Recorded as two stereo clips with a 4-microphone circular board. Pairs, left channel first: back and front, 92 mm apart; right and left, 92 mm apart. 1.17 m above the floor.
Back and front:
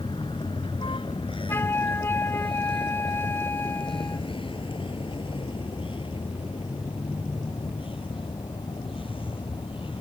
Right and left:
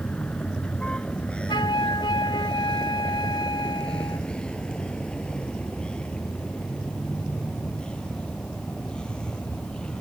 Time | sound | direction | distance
0.0 | a vehicle | 165° right | ?
1.5 | a flute | 120° right | ?